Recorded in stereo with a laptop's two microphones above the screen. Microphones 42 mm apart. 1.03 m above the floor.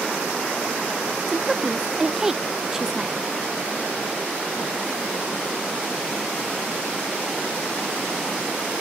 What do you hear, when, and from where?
1.3 s a woman speaking: 10° right (ahead or behind), 0.5 m